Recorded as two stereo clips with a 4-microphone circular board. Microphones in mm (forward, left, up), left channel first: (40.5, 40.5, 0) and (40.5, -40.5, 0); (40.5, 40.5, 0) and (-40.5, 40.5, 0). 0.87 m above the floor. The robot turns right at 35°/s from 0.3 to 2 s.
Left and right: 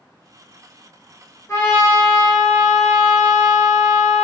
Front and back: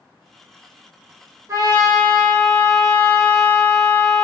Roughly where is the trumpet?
Behind left.